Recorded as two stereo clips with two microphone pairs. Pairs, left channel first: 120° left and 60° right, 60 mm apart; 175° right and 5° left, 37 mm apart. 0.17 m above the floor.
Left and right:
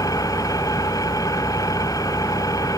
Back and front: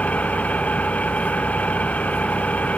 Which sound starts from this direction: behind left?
An engine running, at 0.0 s.